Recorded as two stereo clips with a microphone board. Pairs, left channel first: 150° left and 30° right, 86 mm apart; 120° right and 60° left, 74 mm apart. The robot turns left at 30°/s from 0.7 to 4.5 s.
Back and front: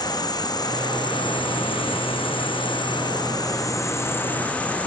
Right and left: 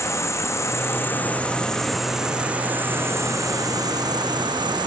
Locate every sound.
0.0 s an insect: 170° right, 0.7 m; by 4.9 s 75° left, 0.7 m